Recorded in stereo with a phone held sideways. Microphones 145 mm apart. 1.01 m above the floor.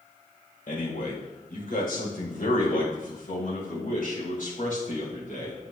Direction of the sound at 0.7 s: 85° left.